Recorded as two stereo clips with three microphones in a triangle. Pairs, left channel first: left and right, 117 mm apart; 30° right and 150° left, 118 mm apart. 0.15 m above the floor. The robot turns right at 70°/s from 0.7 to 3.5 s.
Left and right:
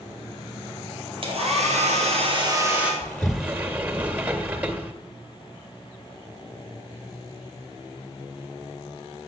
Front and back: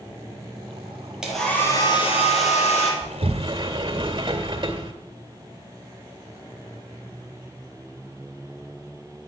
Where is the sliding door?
165° left, 2 m; by 4.9 s 165° right, 2 m.